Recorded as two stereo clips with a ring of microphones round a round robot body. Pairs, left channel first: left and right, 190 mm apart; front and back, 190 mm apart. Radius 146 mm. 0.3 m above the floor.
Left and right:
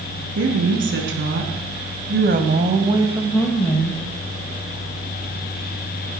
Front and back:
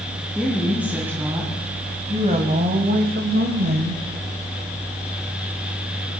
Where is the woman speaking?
95° right, 4.5 m; by 4.0 s 150° left, 2 m.